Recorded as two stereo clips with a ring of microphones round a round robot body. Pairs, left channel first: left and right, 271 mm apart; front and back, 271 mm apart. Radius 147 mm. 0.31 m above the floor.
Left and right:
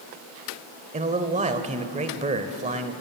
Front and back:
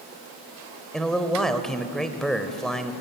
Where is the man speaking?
85° right, 1.3 m.